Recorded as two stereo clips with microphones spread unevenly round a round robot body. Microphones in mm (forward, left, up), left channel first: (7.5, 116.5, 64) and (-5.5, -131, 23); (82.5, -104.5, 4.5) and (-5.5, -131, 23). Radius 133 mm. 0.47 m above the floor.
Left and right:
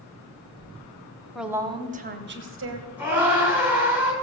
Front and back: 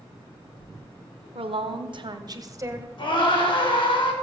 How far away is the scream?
About 7 m.